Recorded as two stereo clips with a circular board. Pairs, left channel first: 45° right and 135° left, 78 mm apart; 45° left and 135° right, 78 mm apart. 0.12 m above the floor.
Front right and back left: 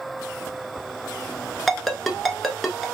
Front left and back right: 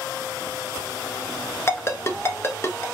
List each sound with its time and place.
1.7 s a ringtone: 40° left, 0.7 m